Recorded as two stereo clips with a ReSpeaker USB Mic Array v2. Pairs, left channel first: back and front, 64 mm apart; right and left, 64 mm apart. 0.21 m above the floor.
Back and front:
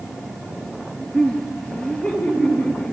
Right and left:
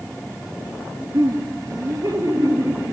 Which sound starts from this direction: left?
Laughter, at 1.1 s.